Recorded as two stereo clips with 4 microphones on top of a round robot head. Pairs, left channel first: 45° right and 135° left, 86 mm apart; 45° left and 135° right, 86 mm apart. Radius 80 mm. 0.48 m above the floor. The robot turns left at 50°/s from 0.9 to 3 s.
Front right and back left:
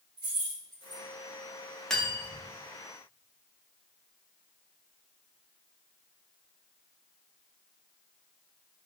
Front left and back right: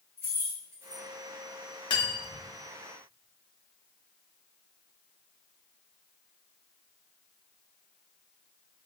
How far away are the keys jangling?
About 1.8 m.